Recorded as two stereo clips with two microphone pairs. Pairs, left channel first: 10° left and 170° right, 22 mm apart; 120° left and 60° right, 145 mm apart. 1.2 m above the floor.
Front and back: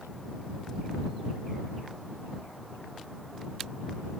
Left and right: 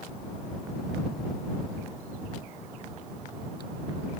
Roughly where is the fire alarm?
No fire alarm in this recording.